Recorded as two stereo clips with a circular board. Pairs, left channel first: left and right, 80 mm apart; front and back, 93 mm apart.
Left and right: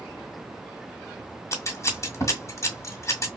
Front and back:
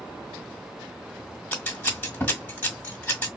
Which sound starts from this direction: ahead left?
Scissors, at 1.5 s.